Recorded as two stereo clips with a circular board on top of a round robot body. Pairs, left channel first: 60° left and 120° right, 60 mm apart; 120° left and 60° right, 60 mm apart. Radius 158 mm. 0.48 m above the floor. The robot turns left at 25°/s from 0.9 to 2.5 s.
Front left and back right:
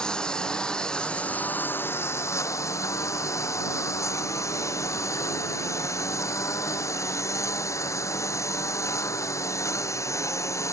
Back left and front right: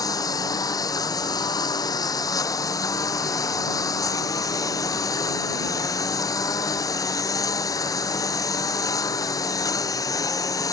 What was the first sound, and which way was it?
A lawn mower, 135° left.